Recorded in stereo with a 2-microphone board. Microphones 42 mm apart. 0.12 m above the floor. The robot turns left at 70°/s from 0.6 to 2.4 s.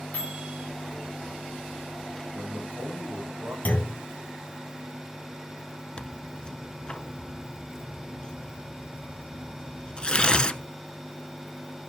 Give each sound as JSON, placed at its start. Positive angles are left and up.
{"t": 0.1, "sound": "a microwave", "side_deg": 45, "distance_m": 9.5}
{"t": 2.3, "sound": "a man speaking", "side_deg": -50, "distance_m": 6.5}
{"t": 3.6, "sound": "a clunk", "side_deg": 40, "distance_m": 2.0}
{"t": 6.0, "sound": "tearing paper", "side_deg": 25, "distance_m": 0.7}